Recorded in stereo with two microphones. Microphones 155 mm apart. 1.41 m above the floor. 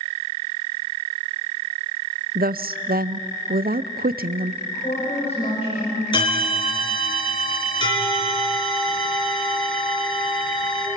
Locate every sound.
2.4 s a woman speaking: 70° right (ahead or behind), 0.6 m
4.6 s a woman speaking: 40° left (ahead or behind), 7 m
6.1 s a bell: 30° left (ahead or behind), 4.5 m